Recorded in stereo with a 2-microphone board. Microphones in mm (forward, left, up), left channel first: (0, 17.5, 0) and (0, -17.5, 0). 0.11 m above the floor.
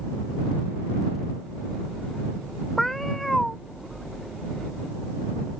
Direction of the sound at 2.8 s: 5° left (ahead or behind).